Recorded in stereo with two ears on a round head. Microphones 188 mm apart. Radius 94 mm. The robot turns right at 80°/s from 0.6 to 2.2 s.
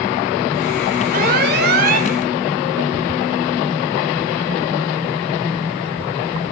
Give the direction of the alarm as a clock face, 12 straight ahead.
4 o'clock.